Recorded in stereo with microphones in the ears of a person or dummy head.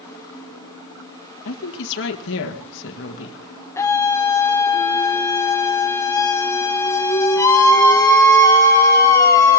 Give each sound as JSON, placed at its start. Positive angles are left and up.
{"t": 1.4, "sound": "a woman speaking", "side_deg": 65, "distance_m": 1.8}
{"t": 3.8, "sound": "a scream", "side_deg": 15, "distance_m": 0.9}